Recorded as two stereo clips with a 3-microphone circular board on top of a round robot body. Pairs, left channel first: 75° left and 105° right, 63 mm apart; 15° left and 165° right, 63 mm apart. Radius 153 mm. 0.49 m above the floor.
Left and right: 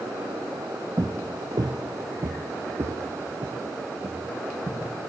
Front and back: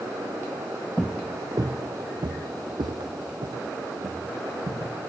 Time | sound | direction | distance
1.0 | footsteps | 75° right | 0.5 m